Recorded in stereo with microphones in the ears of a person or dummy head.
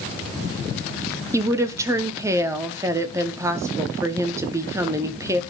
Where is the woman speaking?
20° right (ahead or behind), 0.8 m.